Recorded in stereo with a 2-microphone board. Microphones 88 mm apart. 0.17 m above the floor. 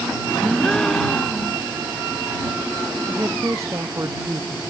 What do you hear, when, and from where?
0.4 s a gasp: 10° left (ahead or behind)
3.1 s a woman speaking: 35° right (ahead or behind)